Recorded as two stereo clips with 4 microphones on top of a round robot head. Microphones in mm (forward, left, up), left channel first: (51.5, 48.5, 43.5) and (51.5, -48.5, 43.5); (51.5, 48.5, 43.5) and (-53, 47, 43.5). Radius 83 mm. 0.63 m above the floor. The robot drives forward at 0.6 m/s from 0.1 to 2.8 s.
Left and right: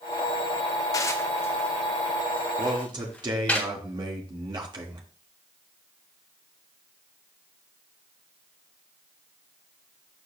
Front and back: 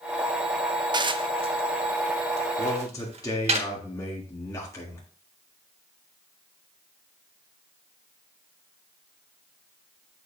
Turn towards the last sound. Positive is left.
turn(degrees=-60)